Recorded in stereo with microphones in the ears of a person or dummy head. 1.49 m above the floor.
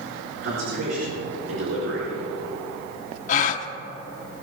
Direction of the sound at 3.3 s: 45° left (ahead or behind).